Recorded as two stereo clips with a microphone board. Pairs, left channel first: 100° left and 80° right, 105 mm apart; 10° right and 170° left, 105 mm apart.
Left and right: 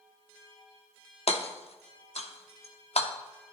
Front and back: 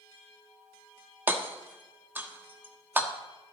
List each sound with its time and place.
1.3 s hammering: 100° left, 1.1 m